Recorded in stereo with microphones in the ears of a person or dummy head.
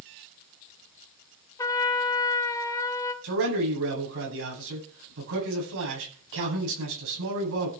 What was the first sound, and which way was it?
A trumpet, 15° left (ahead or behind).